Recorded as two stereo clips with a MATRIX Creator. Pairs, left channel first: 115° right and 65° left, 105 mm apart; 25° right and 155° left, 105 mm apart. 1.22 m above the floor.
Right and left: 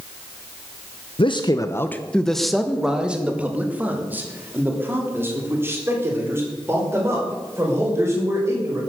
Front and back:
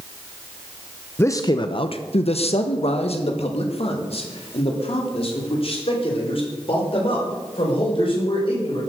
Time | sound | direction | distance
1.2 | a man speaking | 90° right | 0.7 m